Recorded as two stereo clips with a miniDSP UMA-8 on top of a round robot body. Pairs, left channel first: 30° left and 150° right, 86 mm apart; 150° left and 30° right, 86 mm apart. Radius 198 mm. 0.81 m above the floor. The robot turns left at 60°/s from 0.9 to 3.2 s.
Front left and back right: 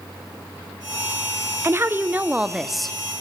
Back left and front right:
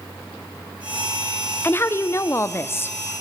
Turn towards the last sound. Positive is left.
turn(degrees=95)